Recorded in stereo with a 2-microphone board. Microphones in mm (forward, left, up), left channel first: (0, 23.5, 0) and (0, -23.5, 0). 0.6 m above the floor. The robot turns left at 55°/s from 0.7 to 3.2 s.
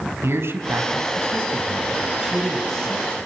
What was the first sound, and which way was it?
A man speaking, 80° right.